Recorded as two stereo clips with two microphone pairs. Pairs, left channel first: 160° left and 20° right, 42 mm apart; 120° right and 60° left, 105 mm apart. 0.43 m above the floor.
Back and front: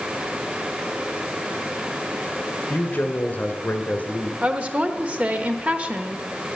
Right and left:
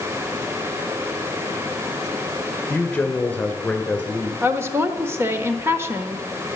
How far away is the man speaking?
About 2.0 m.